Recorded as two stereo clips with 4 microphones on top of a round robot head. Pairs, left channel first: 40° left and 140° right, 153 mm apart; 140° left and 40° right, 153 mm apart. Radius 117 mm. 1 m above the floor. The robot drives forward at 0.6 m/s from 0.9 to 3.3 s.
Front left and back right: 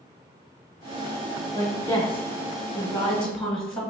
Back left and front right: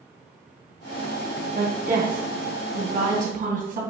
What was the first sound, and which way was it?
A woman speaking, 25° right.